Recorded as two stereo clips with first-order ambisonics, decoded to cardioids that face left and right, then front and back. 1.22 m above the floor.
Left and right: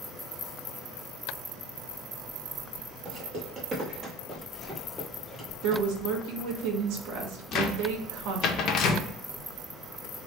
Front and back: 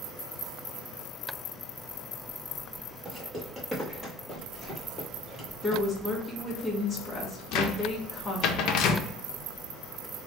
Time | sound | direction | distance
3.0 | footsteps | 115° right | 1.5 m
5.6 | a woman speaking | 80° right | 1.1 m
7.5 | a cupboard door | 40° left | 0.5 m